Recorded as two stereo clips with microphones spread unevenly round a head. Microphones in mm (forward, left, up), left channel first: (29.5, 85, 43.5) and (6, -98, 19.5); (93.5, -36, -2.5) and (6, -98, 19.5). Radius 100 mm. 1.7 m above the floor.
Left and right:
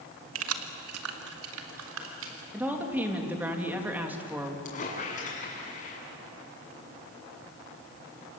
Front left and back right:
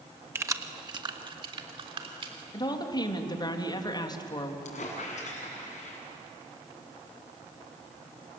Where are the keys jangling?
90° right, 1.5 m; by 2.4 s 120° right, 4 m.